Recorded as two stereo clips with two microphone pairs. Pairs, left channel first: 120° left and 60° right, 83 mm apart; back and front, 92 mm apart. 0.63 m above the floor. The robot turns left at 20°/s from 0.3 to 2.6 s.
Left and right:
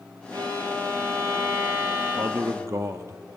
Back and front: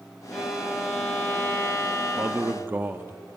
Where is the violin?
90° right, 3 m; by 2.6 s 135° right, 3 m.